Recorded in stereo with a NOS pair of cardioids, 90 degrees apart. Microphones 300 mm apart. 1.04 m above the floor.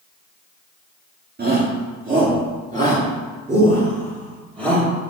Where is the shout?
30° right, 2 m; by 4.9 s 20° right, 4 m.